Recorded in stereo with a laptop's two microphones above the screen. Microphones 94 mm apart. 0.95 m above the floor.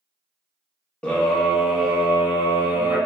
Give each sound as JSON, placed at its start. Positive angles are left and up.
{"t": 1.0, "sound": "a scream", "side_deg": 10, "distance_m": 0.6}